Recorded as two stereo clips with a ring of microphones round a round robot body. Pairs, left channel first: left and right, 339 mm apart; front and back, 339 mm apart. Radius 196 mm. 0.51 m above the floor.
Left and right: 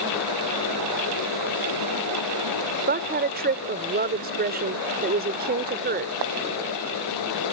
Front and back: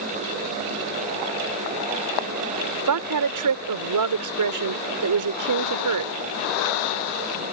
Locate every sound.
2.9 s a woman speaking: 155° right